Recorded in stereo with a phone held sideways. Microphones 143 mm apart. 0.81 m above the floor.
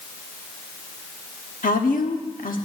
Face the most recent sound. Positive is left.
turn(degrees=75)  # may be behind; listen again after turning